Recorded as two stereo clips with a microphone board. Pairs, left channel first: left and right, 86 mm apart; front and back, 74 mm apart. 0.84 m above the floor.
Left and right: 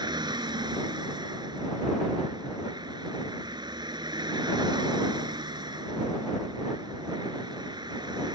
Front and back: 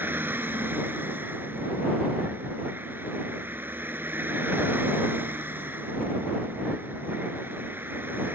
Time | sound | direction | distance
0.0 | a vehicle | 120° right | ?